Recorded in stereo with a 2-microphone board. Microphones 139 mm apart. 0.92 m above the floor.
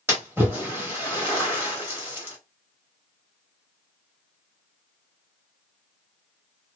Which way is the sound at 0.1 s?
15° right (ahead or behind).